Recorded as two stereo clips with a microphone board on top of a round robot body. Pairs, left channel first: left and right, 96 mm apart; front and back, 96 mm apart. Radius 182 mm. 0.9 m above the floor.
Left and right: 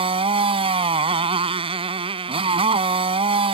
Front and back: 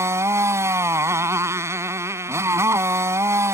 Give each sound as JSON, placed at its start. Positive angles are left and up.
{"t": 0.0, "sound": "a motorcycle", "azimuth_deg": -115}